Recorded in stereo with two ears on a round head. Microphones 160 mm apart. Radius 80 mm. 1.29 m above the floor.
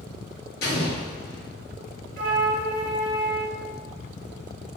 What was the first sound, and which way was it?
An explosion, 60° left (ahead or behind).